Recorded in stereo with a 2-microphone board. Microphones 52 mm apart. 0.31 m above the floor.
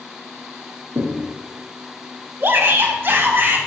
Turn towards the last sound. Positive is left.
turn(degrees=-45)  # may be behind; listen again after turning